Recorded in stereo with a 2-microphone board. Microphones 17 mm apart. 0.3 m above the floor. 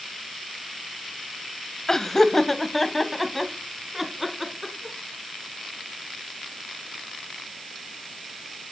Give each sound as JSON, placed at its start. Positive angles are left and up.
{"t": 1.9, "sound": "laughter", "side_deg": 35, "distance_m": 1.2}